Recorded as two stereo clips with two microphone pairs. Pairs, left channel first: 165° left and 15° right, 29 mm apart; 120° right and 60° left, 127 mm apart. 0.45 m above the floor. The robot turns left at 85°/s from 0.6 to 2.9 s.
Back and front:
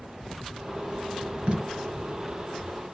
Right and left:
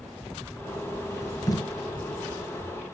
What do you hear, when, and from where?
1.5 s tape being pulled: 55° right, 3.5 m; by 1.6 s 70° right, 3.5 m